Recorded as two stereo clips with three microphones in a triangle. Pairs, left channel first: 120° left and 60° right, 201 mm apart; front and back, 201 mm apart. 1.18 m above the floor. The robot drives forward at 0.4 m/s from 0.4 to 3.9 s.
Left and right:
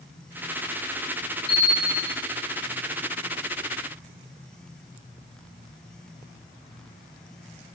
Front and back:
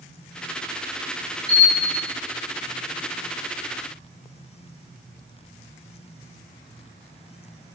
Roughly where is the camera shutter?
Right.